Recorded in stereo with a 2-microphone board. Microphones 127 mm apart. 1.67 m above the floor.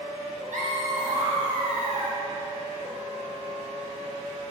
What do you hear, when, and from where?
0.5 s laughter: 75° right (ahead or behind), 1.9 m; by 2.2 s 65° right (ahead or behind), 2.5 m